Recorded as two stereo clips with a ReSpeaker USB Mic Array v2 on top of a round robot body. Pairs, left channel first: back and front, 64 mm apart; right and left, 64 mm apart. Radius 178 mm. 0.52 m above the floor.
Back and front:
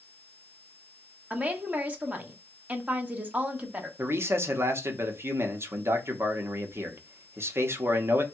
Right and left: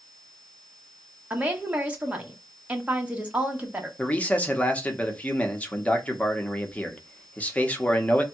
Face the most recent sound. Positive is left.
turn(degrees=-30)